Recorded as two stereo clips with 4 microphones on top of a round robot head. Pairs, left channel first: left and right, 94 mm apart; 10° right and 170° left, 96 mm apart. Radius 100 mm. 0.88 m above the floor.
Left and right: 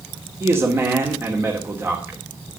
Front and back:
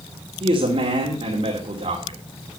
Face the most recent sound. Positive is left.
turn(degrees=-155)